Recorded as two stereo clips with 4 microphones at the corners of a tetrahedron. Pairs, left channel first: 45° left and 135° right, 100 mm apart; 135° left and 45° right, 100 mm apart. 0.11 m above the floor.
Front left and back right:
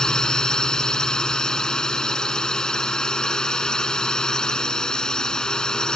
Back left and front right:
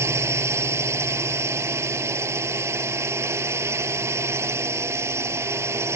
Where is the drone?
30° right.